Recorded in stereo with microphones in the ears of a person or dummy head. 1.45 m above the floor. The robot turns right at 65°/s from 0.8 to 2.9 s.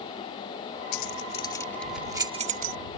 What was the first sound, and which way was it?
Keys jangling, 60° left (ahead or behind).